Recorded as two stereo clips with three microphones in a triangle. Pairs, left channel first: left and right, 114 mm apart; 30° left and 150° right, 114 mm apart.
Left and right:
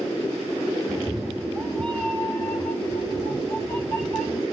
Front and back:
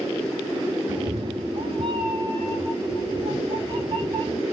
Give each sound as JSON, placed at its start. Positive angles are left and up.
{"t": 0.9, "sound": "a cat meowing", "azimuth_deg": -175, "distance_m": 0.7}